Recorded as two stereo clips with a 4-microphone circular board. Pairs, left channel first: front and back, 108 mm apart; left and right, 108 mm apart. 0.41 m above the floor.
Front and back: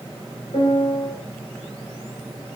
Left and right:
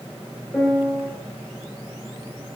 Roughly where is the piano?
Ahead.